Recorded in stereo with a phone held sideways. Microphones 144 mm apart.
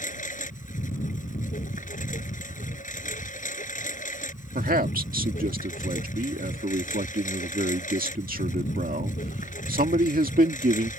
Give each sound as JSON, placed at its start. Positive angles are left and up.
{"t": 0.0, "sound": "a lawn mower", "side_deg": 65}
{"t": 4.5, "sound": "a man speaking", "side_deg": -80}